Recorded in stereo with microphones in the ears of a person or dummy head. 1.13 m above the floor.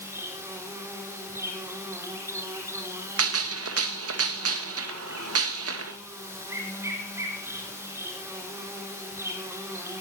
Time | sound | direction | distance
0.0 | an insect | 10° right (ahead or behind) | 4.5 m
3.2 | a gunshot | 70° right (ahead or behind) | 1.4 m